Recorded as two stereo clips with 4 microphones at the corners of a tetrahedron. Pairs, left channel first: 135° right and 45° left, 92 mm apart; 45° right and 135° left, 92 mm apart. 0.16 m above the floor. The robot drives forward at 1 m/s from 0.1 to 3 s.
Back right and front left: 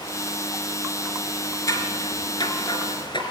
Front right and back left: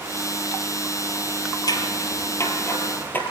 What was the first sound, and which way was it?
Scissors, 85° right.